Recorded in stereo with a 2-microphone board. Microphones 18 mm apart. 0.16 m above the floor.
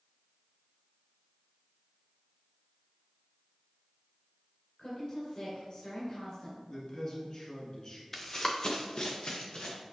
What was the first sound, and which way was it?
A woman speaking, 45° left (ahead or behind).